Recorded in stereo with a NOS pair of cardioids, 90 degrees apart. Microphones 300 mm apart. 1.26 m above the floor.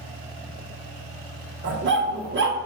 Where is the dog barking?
40° right, 2 m.